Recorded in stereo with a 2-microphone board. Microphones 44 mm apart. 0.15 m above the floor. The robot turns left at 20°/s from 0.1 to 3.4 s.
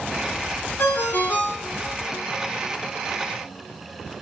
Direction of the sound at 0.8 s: 50° left (ahead or behind).